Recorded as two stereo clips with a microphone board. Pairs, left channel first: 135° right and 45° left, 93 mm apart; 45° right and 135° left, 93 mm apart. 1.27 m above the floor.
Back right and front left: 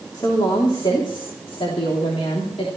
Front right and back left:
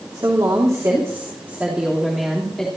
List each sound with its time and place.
0.1 s a woman speaking: straight behind, 3 m; by 2.7 s 130° right, 3 m